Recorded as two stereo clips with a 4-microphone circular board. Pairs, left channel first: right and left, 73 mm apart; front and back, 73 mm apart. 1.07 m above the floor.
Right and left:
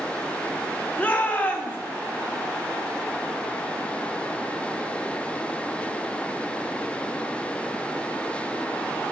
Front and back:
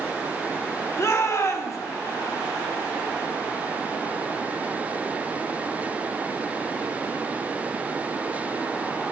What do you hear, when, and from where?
1.0 s a shout: 30° right, 1.1 m